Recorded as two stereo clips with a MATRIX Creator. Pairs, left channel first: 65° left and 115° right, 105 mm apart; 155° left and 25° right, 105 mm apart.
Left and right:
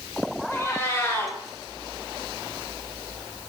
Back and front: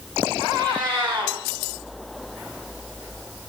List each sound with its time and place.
0.5 s a cat meowing: 10° left, 1.4 m